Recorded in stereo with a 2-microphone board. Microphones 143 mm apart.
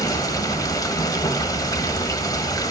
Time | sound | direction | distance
0.0 | running water | 25° left (ahead or behind) | 1.4 m